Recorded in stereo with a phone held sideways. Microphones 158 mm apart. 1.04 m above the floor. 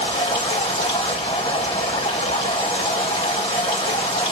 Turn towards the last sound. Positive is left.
turn(degrees=35)  # may be behind; listen again after turning